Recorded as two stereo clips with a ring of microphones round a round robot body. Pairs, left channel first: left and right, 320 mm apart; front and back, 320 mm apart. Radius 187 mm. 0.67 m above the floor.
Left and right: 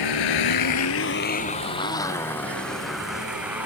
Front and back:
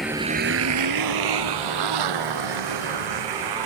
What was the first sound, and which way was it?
A motorcycle, 90° left.